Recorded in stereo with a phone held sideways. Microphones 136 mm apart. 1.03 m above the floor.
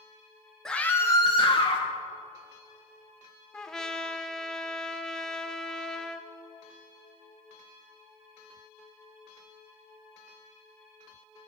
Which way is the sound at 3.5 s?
5° left (ahead or behind).